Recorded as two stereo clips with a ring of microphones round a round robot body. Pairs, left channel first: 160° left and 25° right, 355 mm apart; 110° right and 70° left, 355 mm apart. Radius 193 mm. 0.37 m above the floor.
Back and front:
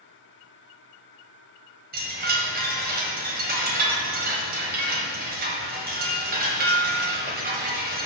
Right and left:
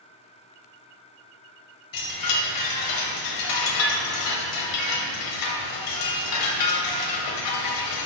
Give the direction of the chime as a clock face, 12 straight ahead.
3 o'clock.